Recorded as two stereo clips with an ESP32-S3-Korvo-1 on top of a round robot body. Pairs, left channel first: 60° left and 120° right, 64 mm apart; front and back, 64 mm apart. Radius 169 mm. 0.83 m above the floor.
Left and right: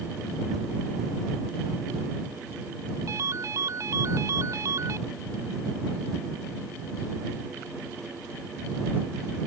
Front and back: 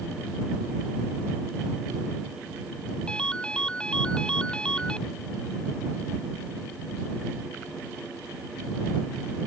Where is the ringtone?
75° right.